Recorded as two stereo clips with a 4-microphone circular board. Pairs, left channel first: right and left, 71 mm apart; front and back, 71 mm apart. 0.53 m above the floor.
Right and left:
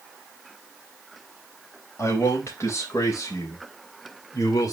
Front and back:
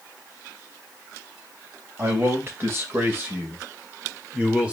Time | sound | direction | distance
2.0 | a man speaking | 135° right | 3 m